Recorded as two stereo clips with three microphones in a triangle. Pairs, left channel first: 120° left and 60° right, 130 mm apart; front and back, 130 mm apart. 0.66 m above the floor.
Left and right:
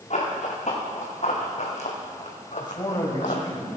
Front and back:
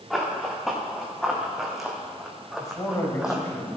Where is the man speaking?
65° left, 3 m.